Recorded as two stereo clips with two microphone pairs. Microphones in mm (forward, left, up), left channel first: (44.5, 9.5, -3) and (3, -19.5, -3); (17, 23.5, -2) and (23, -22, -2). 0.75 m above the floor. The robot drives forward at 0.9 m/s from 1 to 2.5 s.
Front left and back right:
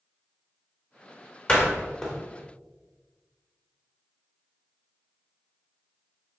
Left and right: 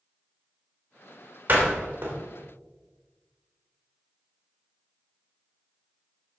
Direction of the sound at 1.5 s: 30° right.